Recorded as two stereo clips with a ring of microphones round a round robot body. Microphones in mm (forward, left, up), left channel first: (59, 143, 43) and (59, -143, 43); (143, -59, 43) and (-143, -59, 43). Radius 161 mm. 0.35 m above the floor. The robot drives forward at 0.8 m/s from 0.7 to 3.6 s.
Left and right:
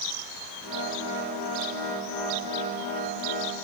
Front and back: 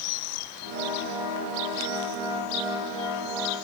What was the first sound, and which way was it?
Only background noise.